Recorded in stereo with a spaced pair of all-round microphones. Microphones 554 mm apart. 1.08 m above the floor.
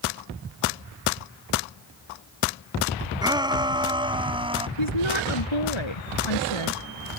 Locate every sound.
3.2 s a shout: 10° right (ahead or behind)
4.8 s a woman speaking: 60° left (ahead or behind)